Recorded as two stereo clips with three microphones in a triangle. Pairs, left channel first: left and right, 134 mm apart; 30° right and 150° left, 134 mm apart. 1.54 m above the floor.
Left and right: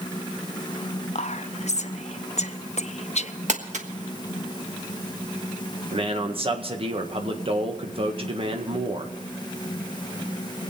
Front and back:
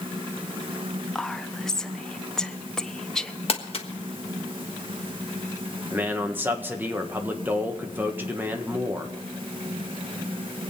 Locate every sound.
1.1 s whispering: 55° left, 0.8 m
3.5 s crumpling: 70° right, 1.4 m
5.9 s a man speaking: 135° right, 1.5 m